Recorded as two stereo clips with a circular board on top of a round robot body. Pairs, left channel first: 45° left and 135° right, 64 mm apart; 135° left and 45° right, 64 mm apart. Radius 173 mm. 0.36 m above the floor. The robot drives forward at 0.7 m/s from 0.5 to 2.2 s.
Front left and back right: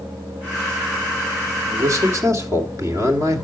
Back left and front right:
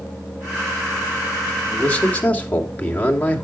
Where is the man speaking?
160° right, 2 m.